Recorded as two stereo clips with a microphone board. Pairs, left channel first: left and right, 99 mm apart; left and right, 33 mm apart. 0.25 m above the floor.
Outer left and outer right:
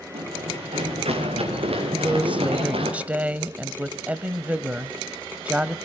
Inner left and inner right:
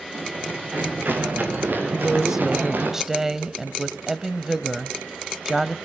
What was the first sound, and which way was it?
Running footsteps, 90° right.